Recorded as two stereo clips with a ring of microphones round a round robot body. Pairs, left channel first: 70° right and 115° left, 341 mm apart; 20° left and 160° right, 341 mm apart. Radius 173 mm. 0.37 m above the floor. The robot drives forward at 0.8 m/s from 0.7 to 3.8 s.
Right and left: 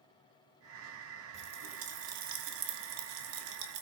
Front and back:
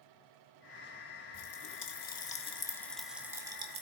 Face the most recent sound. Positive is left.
turn(degrees=130)